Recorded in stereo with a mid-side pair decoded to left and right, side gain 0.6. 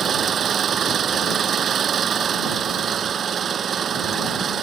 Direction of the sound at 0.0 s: 40° right.